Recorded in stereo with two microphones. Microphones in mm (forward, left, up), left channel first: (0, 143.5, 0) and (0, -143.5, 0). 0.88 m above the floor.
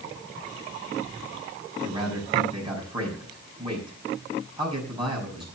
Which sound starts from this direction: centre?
A man speaking, at 1.8 s.